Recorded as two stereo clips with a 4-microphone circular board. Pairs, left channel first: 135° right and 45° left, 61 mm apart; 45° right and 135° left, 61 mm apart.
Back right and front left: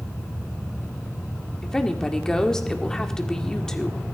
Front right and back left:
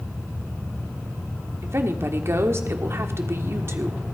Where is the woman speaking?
150° left, 1.6 m.